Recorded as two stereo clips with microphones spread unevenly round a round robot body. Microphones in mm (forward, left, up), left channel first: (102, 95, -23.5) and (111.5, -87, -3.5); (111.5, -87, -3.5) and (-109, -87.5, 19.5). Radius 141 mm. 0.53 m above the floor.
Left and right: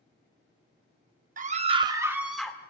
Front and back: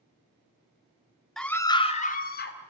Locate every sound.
1.4 s a scream: 80° right, 1.5 m; by 2.6 s 15° left, 2 m